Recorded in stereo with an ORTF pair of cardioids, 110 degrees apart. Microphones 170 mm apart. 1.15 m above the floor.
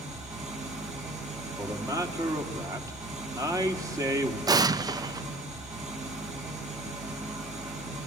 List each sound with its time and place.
0.0 s an engine running: 45° right, 9 m
1.6 s a man speaking: 20° right, 3 m
4.5 s an explosion: 20° right, 0.7 m